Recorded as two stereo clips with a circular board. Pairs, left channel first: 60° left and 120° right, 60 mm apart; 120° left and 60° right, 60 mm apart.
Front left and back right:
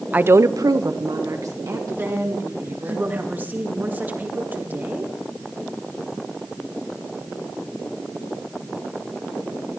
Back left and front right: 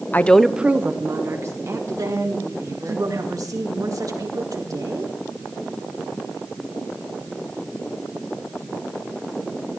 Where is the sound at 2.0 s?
60° right, 2.5 m.